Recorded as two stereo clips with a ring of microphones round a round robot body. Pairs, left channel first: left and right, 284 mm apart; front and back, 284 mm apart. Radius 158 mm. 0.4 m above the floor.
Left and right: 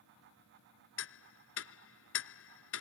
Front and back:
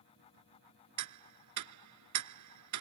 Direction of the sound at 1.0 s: 140° left.